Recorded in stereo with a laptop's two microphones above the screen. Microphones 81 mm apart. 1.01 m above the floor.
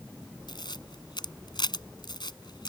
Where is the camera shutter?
65° left (ahead or behind).